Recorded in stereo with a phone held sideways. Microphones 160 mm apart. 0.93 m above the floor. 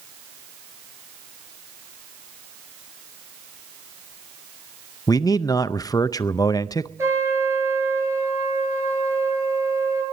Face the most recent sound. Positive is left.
turn(degrees=-15)  # may be behind; listen again after turning